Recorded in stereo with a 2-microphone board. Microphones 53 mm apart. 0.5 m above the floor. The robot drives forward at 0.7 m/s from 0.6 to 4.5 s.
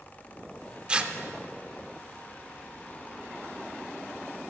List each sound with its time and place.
0.9 s tearing paper: 20° right (ahead or behind), 0.6 m; by 1.1 s 25° right (ahead or behind), 0.5 m